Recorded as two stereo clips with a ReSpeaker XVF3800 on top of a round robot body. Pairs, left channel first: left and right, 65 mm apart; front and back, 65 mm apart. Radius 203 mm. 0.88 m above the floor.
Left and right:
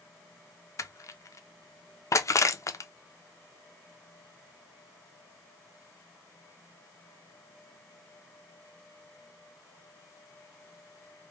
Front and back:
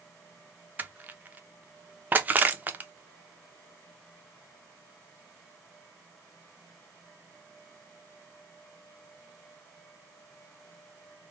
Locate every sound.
0.8 s crushing: 120° left, 0.5 m